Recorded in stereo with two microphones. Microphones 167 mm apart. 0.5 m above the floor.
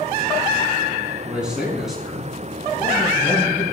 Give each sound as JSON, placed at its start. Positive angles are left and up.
{"t": 1.3, "sound": "a man speaking", "side_deg": -5, "distance_m": 4.5}